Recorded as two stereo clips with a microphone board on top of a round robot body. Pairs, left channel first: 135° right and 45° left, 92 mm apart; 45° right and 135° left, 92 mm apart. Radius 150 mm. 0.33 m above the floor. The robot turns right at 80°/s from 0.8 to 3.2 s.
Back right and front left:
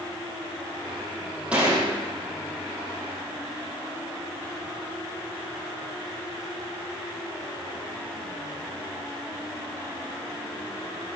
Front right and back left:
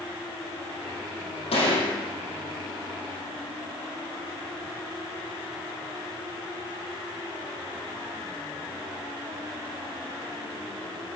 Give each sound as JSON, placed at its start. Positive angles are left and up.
{"t": 1.5, "sound": "a gunshot", "azimuth_deg": -35, "distance_m": 4.5}